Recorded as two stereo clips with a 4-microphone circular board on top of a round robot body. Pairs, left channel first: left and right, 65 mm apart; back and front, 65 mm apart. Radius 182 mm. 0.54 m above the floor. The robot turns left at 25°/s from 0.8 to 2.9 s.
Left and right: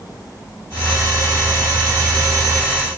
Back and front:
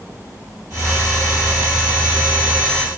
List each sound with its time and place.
Only background noise.